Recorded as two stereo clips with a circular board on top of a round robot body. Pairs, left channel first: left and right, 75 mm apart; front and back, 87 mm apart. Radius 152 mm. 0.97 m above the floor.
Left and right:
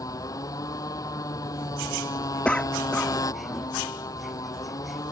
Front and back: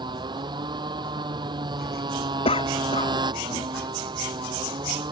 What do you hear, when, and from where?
0.0 s a motorcycle: 140° left
2.5 s a cough: 15° left